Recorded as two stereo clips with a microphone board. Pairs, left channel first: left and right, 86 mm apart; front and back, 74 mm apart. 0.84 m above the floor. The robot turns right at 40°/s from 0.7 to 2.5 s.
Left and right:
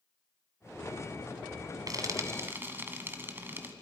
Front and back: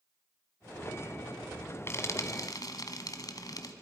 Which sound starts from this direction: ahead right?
Frying, at 1.9 s.